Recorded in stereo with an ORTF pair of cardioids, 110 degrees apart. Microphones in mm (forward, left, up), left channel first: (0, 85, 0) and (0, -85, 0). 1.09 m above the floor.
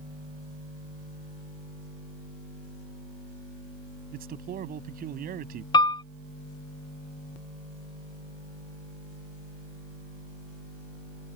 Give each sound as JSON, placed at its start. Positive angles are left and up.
{"t": 4.1, "sound": "a man speaking", "azimuth_deg": -60}
{"t": 5.7, "sound": "a piano", "azimuth_deg": 25}